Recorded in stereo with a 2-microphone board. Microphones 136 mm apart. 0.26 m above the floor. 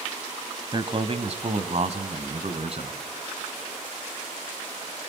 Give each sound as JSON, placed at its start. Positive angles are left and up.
{"t": 0.7, "sound": "a man speaking", "side_deg": -35, "distance_m": 1.2}